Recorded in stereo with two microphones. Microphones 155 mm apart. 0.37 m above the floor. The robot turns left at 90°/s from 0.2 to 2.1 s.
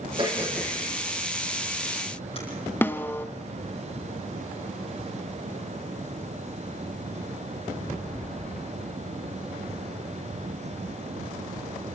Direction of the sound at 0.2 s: 35° right (ahead or behind).